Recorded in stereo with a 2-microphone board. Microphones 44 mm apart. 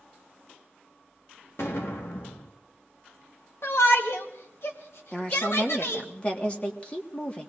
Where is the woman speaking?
25° left (ahead or behind), 1.6 m.